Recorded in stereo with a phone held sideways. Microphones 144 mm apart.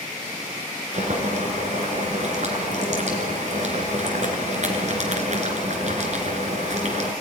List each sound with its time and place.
0.9 s boiling: 55° right (ahead or behind), 3 m